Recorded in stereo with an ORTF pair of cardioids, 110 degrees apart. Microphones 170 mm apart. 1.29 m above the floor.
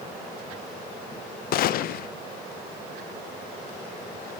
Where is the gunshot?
60° left, 0.6 m.